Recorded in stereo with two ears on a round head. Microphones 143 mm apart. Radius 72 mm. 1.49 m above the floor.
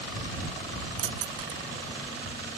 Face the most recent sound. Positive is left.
turn(degrees=-80)